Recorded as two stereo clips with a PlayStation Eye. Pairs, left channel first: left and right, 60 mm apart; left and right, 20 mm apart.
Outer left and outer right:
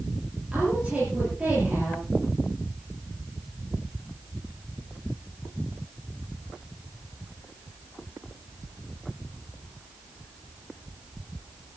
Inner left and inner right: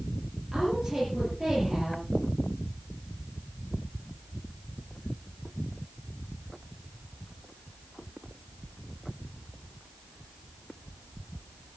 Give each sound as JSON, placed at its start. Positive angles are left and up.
{"t": 0.5, "sound": "a woman speaking", "side_deg": -20, "distance_m": 7.5}